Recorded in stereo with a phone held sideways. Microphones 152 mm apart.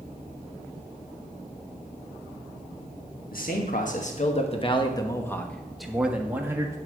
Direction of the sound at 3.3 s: 70° left (ahead or behind).